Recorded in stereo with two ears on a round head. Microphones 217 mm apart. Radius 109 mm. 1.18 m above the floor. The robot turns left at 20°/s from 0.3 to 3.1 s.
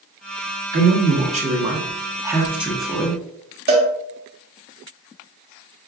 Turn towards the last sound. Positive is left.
turn(degrees=-40)  # may be behind; listen again after turning